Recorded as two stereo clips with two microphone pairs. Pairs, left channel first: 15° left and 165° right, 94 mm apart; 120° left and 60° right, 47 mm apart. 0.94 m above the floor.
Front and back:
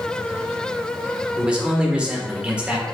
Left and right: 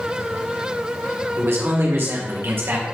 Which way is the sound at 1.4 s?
90° right.